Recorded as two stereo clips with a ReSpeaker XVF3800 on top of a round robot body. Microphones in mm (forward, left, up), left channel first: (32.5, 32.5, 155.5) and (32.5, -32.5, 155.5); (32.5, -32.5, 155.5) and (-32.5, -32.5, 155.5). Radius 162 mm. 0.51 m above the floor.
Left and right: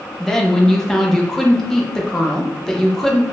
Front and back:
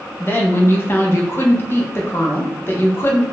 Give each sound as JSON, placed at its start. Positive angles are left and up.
{"t": 0.2, "sound": "a woman speaking", "azimuth_deg": 10, "distance_m": 1.0}